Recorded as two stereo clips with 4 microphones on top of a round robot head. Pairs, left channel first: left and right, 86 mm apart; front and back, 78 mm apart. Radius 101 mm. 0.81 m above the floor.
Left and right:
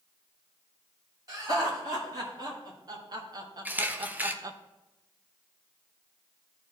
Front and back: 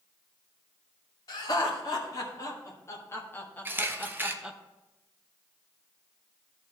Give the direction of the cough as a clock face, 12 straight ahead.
No cough in this recording.